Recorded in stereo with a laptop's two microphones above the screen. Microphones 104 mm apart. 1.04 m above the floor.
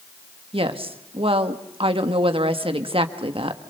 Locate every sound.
0.5 s a woman speaking: 70° right (ahead or behind), 1.4 m